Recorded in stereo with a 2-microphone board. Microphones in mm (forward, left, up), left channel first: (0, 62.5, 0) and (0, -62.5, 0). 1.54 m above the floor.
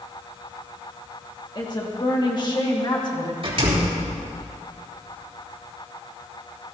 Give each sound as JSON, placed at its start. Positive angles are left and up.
{"t": 1.6, "sound": "a woman speaking", "side_deg": 40, "distance_m": 2.0}
{"t": 3.4, "sound": "a door slam", "side_deg": -50, "distance_m": 3.5}